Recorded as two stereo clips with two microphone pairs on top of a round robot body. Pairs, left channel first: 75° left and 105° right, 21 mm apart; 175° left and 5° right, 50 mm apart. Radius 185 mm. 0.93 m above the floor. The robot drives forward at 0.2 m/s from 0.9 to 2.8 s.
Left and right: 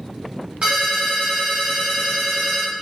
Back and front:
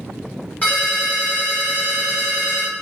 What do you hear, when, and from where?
0.6 s a ringtone: 135° right, 0.6 m; by 2.7 s 150° right, 0.9 m